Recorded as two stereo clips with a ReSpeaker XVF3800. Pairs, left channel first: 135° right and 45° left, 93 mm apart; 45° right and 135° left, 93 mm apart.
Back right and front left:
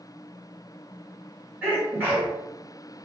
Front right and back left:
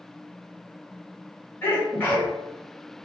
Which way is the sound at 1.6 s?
Straight ahead.